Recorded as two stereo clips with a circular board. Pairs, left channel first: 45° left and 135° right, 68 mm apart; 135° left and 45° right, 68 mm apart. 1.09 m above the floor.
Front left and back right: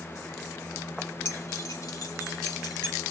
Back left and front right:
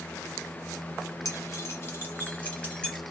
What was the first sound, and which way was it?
Keys jangling, 95° left.